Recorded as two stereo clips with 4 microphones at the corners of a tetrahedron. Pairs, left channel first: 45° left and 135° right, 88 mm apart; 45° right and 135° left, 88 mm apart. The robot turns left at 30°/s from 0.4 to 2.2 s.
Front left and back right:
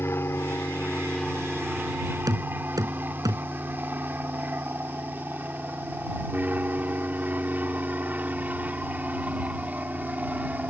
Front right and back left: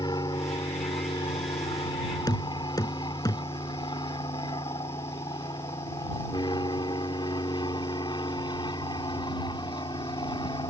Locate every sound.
0.0 s an aircraft: 15° right; by 10.7 s 60° right
2.3 s knocking: 90° right